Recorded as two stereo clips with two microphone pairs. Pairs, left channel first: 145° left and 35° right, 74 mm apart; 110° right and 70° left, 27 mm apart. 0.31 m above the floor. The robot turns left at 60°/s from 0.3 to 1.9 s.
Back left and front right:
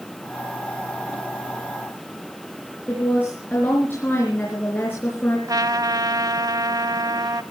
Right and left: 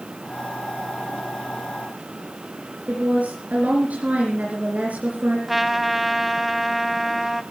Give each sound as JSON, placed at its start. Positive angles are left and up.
{"t": 2.9, "sound": "a woman speaking", "azimuth_deg": 80, "distance_m": 4.5}
{"t": 5.5, "sound": "a trumpet", "azimuth_deg": -15, "distance_m": 1.0}